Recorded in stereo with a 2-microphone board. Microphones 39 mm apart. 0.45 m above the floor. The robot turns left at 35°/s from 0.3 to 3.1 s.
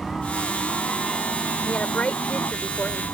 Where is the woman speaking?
135° left; by 3.0 s 85° left.